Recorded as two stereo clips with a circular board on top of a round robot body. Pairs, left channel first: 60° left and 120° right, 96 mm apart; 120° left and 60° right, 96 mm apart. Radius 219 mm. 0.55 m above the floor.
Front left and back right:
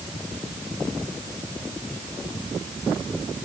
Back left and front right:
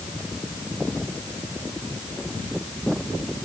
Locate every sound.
Only background noise.